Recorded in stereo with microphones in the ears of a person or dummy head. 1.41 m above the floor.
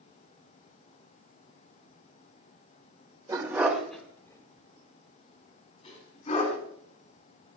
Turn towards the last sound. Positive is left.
turn(degrees=35)  # may be behind; listen again after turning